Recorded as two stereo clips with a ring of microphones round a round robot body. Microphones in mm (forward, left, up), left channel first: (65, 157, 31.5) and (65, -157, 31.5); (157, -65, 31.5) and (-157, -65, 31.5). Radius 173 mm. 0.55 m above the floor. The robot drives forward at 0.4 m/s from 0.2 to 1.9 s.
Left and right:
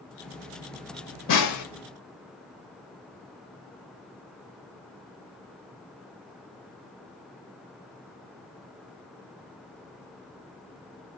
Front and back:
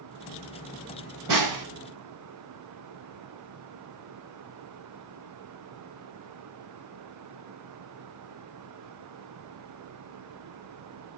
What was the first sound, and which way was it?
A snare drum, 135° left.